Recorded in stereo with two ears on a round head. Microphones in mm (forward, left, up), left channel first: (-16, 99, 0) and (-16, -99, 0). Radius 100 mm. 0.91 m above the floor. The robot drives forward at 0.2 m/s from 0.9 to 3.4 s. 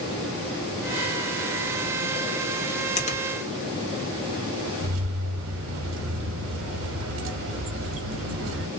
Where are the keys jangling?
60° right (ahead or behind), 1.0 m.